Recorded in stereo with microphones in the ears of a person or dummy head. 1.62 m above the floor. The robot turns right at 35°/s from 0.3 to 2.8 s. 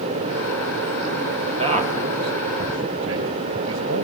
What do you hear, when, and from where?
1.6 s a man speaking: 35° right (ahead or behind), 2.5 m; by 4.0 s 75° right (ahead or behind), 2.5 m